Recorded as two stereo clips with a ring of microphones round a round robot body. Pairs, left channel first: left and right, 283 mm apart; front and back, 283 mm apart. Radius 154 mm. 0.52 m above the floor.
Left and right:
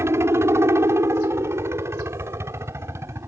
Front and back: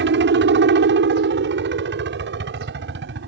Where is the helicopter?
165° right.